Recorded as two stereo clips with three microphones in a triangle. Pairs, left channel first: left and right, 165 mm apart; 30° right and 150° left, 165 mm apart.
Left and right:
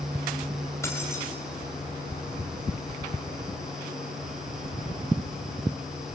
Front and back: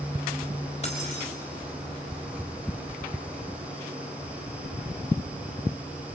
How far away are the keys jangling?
About 5 m.